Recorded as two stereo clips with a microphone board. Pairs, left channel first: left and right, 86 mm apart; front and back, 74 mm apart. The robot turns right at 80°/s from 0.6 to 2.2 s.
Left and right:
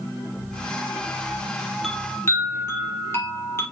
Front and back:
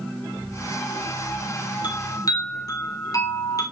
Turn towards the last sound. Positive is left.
turn(degrees=30)